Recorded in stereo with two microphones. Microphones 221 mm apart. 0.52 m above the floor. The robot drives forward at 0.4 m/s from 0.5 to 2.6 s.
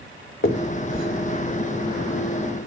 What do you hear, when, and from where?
0.4 s a finger snap: 65° left (ahead or behind), 2.5 m; by 2.7 s 60° left (ahead or behind), 2.5 m